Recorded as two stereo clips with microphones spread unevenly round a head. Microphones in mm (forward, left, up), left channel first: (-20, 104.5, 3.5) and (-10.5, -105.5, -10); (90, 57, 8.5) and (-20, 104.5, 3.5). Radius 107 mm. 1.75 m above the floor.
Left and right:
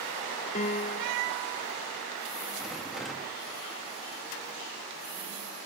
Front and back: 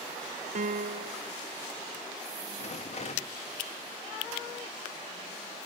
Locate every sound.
0.6 s a piano: 145° left, 1.4 m
2.6 s a rattle: 5° left, 3 m